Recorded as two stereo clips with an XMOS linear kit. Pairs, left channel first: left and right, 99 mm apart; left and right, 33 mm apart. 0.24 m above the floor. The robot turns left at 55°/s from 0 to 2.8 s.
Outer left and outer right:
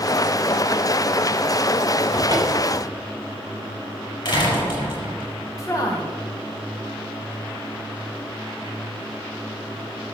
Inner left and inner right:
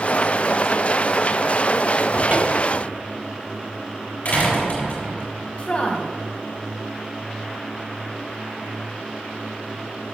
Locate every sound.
2.1 s a cupboard door: 110° right, 2 m; by 2.8 s 145° right, 2 m
4.2 s a door slam: 50° left (ahead or behind), 5 m
5.6 s a woman speaking: 35° left (ahead or behind), 1.6 m